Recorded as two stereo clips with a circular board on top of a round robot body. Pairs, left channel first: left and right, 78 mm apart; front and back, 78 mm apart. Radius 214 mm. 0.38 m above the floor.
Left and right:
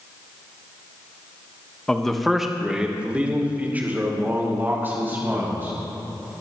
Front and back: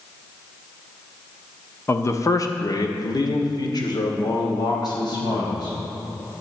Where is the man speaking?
15° left, 1.3 m; by 5.8 s 25° right, 4 m.